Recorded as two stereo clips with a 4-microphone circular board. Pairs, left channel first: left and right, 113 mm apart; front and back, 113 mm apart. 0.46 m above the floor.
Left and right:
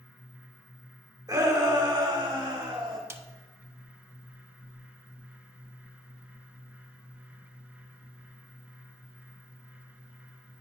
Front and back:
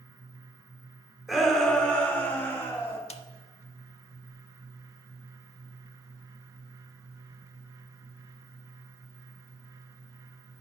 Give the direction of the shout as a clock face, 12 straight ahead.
3 o'clock.